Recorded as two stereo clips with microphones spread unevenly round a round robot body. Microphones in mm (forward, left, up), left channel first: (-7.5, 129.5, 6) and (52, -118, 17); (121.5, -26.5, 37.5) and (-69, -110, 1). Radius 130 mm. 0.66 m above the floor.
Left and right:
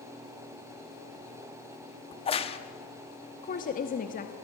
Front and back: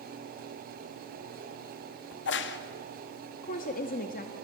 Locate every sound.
2.1 s a crack: 45° left, 1.0 m
3.4 s a woman speaking: 70° left, 1.0 m